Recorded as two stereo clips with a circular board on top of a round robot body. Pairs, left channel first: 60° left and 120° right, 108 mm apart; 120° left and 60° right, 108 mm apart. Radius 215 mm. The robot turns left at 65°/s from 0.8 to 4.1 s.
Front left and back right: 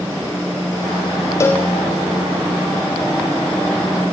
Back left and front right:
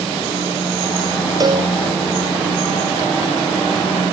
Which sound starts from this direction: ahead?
A cowbell, at 1.4 s.